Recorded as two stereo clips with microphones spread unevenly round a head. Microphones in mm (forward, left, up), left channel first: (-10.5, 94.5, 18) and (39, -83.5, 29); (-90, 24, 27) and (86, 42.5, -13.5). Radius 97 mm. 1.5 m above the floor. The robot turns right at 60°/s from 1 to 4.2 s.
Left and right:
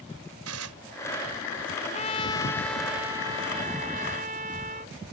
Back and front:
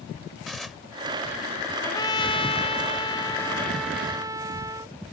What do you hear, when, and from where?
0.5 s dishes clattering: 90° right
1.8 s a trumpet: 140° left; by 5.0 s 75° right